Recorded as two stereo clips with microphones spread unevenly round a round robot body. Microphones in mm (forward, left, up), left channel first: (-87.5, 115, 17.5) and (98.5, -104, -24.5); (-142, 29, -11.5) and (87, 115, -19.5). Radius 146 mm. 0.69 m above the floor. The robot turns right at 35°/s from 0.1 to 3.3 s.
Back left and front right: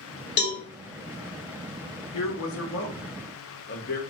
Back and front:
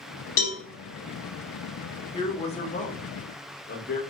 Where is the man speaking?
135° left, 0.9 m; by 4.0 s 175° left, 0.9 m.